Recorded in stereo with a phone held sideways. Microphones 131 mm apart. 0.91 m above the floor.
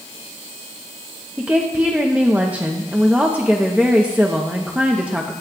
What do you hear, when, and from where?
1.4 s a woman speaking: 10° right (ahead or behind), 0.7 m